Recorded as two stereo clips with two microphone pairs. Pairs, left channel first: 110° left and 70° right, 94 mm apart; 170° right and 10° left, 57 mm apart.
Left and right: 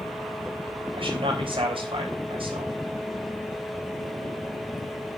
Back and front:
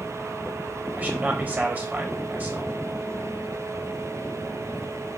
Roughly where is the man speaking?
Ahead right.